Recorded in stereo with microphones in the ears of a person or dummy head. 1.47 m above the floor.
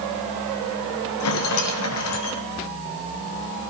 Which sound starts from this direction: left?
A rattle, at 1.2 s.